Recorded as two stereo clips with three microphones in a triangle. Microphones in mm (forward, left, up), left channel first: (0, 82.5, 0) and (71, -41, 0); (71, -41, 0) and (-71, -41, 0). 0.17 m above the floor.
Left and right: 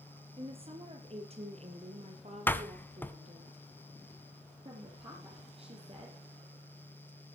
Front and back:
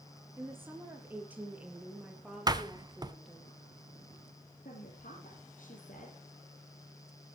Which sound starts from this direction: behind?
A door slam, at 2.5 s.